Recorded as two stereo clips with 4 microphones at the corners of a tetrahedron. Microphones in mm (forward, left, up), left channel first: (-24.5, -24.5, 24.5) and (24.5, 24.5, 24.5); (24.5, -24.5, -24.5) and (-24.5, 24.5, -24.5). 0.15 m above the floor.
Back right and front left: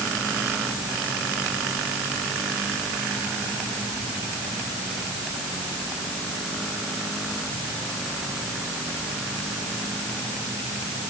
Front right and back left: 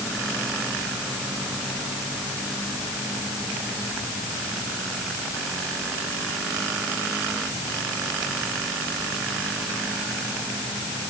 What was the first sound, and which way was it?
Only background noise.